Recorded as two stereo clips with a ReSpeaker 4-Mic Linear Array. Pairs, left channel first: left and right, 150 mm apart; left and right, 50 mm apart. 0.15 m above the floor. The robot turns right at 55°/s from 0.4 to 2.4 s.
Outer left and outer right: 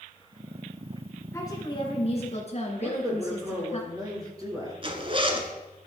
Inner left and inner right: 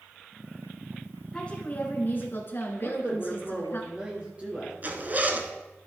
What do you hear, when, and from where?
1.3 s a woman speaking: 25° left, 2.5 m; by 3.8 s 85° left, 2.5 m
2.8 s a man speaking: 25° right (ahead or behind), 2.5 m
4.8 s a zipper: 35° right (ahead or behind), 1.0 m